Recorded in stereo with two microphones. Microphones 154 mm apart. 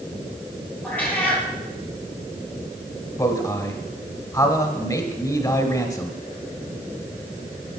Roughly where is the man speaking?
Left.